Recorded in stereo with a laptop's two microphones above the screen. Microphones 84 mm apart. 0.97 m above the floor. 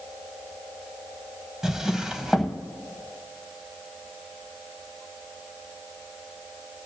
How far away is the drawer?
About 1.1 m.